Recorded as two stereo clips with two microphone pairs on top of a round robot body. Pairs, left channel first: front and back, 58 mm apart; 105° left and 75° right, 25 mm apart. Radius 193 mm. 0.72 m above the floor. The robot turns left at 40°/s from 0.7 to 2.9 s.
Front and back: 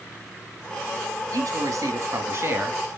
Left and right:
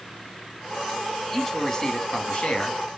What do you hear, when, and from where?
1.3 s a man speaking: 175° right, 2.5 m; by 2.8 s 125° left, 2.5 m